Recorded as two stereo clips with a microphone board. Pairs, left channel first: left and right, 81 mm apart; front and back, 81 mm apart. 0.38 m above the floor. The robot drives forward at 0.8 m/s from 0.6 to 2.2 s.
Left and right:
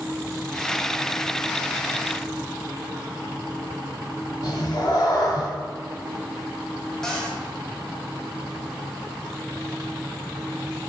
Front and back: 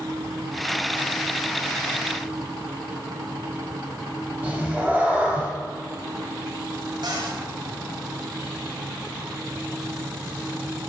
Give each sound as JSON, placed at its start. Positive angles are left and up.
{"t": 4.4, "sound": "a cat meowing", "azimuth_deg": 110, "distance_m": 1.2}
{"t": 7.0, "sound": "a cupboard door", "azimuth_deg": 175, "distance_m": 1.6}